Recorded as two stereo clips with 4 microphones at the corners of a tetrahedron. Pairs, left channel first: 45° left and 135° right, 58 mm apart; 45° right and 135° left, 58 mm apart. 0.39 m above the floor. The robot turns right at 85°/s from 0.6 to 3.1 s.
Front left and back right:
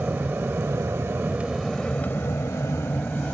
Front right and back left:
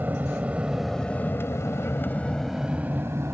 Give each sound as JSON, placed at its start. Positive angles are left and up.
{"t": 0.0, "sound": "an aircraft", "azimuth_deg": 180}